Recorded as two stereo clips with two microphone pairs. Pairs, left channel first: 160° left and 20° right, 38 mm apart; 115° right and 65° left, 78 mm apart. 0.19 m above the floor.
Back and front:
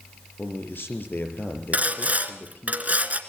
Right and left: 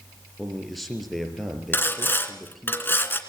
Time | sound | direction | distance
0.4 | a man speaking | 155° left | 4.5 m
1.7 | sawing | 60° right | 2 m